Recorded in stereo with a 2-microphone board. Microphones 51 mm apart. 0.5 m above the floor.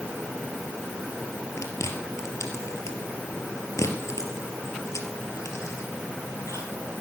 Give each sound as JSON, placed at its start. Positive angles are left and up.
{"t": 1.6, "sound": "chewing", "side_deg": 80, "distance_m": 3.0}